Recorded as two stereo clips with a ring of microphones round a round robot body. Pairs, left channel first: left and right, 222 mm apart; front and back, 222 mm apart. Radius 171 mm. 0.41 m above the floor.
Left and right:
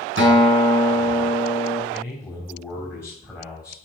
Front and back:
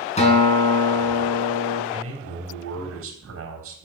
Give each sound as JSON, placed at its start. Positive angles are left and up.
{"t": 0.2, "sound": "a guitar", "azimuth_deg": -60, "distance_m": 4.5}
{"t": 1.9, "sound": "a man speaking", "azimuth_deg": -175, "distance_m": 4.0}